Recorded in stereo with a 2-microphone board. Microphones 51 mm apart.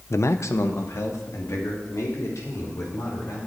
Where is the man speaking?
60° left (ahead or behind), 0.5 m; by 3.4 s 70° left (ahead or behind), 5.5 m.